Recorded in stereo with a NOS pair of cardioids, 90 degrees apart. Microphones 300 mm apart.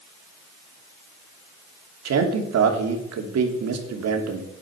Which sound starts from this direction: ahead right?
A man speaking, at 2.0 s.